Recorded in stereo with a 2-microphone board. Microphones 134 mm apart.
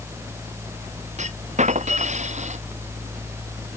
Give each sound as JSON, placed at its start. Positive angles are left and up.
{"t": 1.2, "sound": "a clunk", "side_deg": -60}